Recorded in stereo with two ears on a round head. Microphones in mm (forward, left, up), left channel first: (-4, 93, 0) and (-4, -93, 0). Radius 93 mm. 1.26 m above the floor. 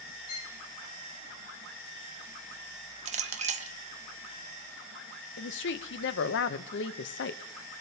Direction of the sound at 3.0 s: 35° right (ahead or behind).